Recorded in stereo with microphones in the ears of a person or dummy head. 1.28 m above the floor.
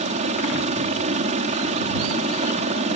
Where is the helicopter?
35° right (ahead or behind).